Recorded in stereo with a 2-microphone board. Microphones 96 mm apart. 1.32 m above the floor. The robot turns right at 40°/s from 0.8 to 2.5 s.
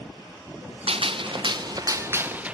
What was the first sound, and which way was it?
A gunshot, 80° right.